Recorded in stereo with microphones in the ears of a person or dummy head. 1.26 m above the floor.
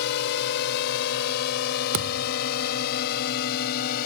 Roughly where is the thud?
Right.